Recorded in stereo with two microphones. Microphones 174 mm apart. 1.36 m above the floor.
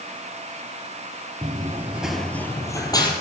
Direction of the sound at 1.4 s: 25° right (ahead or behind).